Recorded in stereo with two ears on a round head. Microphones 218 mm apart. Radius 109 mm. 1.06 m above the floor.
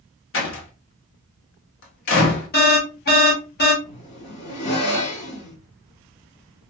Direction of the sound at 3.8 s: 50° left (ahead or behind).